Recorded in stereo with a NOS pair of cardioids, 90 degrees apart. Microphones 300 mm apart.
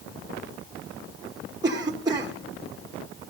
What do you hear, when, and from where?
1.6 s a cough: 15° right, 1.0 m